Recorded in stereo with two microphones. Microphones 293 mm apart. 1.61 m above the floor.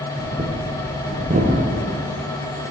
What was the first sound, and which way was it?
Breathing, 25° right (ahead or behind).